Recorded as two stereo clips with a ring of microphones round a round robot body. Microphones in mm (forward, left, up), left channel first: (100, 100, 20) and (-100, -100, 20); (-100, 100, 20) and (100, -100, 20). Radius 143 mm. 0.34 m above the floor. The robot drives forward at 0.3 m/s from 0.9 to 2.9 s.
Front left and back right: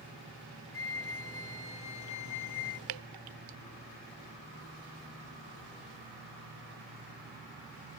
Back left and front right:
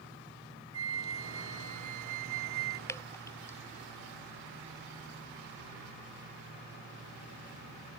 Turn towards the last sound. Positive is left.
turn(degrees=-145)